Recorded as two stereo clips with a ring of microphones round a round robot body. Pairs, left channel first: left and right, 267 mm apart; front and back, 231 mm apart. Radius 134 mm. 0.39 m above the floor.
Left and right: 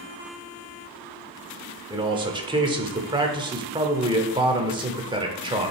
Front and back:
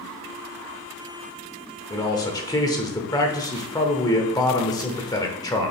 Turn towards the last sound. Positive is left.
turn(degrees=-50)